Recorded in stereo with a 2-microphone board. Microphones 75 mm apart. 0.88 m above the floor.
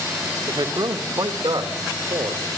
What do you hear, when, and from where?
0.5 s a man speaking: 80° right, 1.7 m; by 2.6 s 85° right, 3 m